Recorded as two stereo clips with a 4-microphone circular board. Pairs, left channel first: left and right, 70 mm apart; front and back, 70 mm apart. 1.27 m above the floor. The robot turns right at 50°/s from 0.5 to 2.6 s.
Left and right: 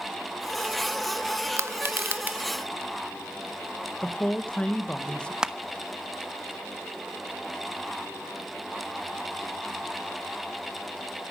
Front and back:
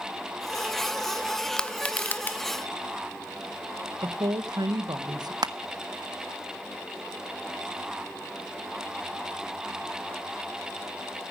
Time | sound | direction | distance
1.6 | crushing | 75° right | 0.7 m
4.0 | a woman speaking | 165° left | 1.3 m
5.4 | crushing | 170° right | 0.8 m